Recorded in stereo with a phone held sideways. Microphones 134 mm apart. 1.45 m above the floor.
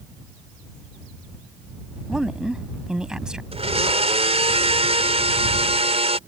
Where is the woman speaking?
5° right (ahead or behind).